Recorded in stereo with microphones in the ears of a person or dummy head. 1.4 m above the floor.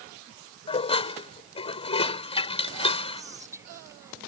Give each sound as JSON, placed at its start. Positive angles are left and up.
{"t": 0.7, "sound": "dishes clattering", "side_deg": 30}
{"t": 3.2, "sound": "whispering", "side_deg": -15}